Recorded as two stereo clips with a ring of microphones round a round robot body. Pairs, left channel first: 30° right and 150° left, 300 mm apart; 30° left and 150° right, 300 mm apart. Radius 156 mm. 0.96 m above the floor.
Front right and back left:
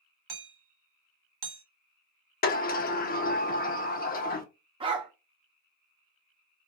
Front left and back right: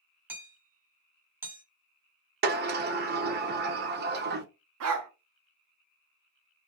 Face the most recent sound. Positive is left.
turn(degrees=-145)